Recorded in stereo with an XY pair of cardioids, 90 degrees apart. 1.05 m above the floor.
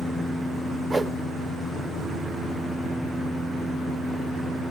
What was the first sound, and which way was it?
A whoosh, 15° right.